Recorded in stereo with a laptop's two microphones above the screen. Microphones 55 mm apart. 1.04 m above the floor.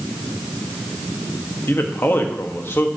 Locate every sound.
1.7 s a man speaking: 50° left (ahead or behind), 1.3 m